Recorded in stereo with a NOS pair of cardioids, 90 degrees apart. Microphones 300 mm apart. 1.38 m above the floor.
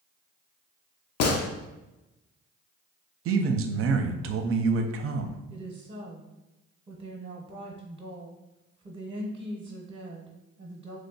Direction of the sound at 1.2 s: 60° left.